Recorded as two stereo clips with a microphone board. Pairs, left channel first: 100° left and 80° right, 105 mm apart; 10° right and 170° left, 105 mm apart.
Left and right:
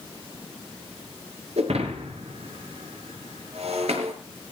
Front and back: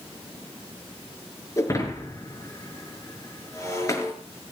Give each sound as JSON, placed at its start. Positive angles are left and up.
{"t": 1.6, "sound": "breaking glass", "azimuth_deg": -70, "distance_m": 5.5}